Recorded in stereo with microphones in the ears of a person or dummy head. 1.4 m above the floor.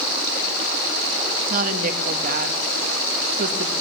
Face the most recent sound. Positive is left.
turn(degrees=-50)  # may be behind; listen again after turning